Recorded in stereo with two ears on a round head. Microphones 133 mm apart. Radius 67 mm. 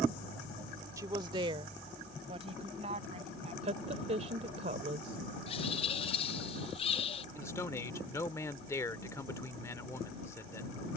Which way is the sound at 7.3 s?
20° left (ahead or behind).